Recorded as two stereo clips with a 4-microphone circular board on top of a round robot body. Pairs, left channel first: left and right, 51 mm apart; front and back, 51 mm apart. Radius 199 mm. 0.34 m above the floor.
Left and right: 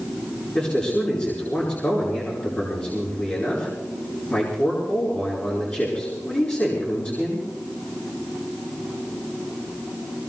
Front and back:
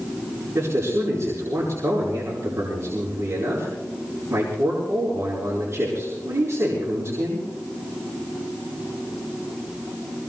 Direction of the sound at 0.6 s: 145° left.